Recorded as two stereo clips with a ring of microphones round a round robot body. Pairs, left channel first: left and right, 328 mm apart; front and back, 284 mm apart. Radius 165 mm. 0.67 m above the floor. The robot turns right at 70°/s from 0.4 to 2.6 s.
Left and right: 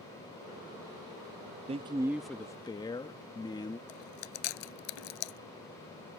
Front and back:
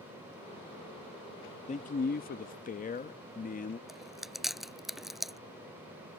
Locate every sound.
1.7 s a man speaking: 40° right; by 3.8 s 25° left
3.9 s chewing: 90° left